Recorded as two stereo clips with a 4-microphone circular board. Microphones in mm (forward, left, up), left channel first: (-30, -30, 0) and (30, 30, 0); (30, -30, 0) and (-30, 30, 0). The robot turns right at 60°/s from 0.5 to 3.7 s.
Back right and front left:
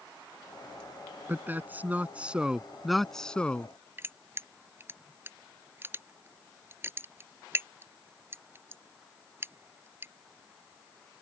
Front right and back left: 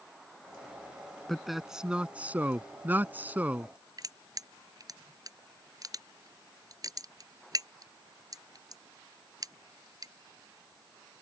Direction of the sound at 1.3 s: 35° left.